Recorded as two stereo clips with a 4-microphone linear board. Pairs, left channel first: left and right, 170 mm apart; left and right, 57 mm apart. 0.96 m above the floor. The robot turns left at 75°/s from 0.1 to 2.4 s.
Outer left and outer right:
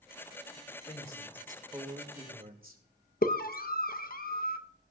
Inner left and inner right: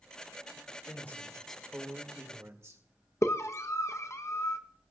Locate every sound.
0.9 s a man speaking: 50° left, 2 m; by 2.8 s 65° right, 2 m
3.2 s a scream: 60° left (ahead or behind), 0.9 m